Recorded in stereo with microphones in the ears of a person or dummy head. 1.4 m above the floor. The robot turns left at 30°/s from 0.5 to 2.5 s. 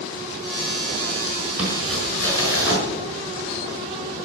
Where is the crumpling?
10° right (ahead or behind), 5 m; by 2.8 s 20° left (ahead or behind), 5 m.